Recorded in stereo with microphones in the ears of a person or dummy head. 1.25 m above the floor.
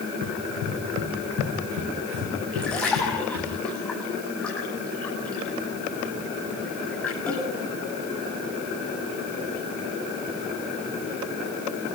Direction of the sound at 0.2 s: 75° right (ahead or behind).